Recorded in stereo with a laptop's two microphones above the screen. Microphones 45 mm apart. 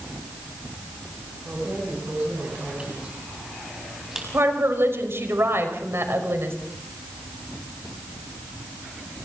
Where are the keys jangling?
45° right (ahead or behind), 6.5 m; by 4.2 s 10° right (ahead or behind), 5.5 m.